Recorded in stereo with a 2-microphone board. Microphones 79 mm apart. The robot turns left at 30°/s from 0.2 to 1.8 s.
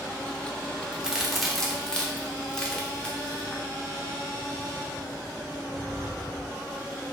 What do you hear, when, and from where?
0.9 s a crack: 15° right (ahead or behind), 0.6 m; by 3.6 s 10° left (ahead or behind), 0.6 m